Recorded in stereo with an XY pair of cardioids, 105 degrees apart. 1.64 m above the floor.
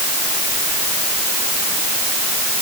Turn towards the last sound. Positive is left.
No sound to turn to.